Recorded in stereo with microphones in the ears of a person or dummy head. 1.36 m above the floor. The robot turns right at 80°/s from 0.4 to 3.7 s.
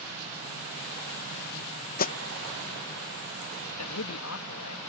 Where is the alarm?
50° left (ahead or behind); by 2.1 s 35° left (ahead or behind).